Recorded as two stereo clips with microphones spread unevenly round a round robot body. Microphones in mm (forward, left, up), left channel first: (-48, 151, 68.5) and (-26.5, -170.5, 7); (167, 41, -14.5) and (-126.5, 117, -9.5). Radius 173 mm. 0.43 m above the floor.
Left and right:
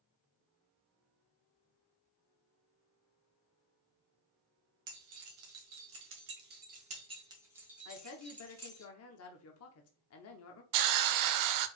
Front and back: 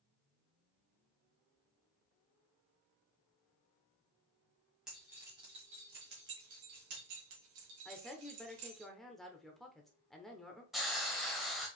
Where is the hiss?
105° right, 0.5 m.